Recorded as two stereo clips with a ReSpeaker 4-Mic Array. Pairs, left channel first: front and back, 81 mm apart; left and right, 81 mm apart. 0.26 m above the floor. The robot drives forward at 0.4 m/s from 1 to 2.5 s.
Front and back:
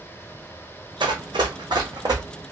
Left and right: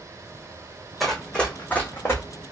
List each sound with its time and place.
1.0 s running footsteps: 175° left, 0.8 m; by 2.2 s 150° left, 1.1 m